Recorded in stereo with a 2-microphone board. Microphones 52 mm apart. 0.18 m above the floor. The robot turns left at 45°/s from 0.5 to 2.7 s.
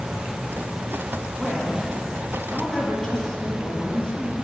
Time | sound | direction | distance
1.4 | a woman speaking | 15° right (ahead or behind) | 1.4 m